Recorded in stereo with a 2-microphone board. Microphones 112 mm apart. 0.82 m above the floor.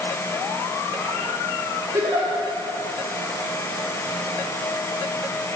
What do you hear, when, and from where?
1.9 s a giggle: 30° right (ahead or behind), 2 m